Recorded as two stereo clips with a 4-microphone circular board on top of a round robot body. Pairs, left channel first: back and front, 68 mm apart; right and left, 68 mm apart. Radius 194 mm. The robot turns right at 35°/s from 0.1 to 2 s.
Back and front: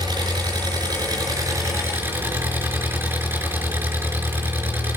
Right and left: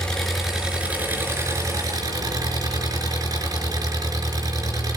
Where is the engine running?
10° right, 4.5 m; by 5.0 s 60° left, 4.5 m.